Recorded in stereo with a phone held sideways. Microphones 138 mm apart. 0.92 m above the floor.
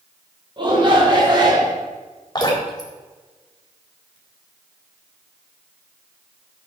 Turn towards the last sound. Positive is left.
turn(degrees=30)  # may be behind; listen again after turning